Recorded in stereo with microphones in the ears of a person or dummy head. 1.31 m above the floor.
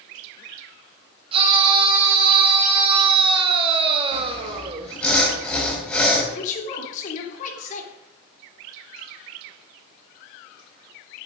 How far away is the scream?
About 4.5 m.